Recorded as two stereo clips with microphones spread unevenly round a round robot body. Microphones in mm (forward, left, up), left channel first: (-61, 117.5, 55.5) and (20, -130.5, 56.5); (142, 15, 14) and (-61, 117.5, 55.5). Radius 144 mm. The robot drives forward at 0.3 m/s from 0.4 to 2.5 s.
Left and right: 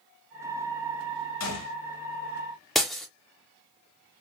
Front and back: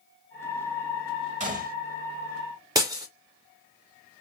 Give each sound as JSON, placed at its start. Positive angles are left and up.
{"t": 1.4, "sound": "a gunshot", "azimuth_deg": 95, "distance_m": 1.1}
{"t": 2.8, "sound": "breaking glass", "azimuth_deg": -165, "distance_m": 0.6}